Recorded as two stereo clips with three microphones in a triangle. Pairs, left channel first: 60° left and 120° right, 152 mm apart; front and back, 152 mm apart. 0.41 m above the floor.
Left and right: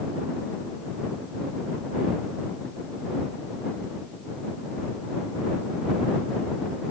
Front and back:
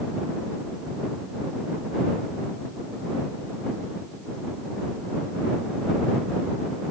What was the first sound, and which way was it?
Only background noise.